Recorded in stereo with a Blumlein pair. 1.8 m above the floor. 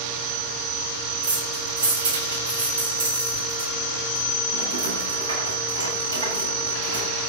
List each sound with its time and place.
1.2 s keys jangling: 60° right, 8 m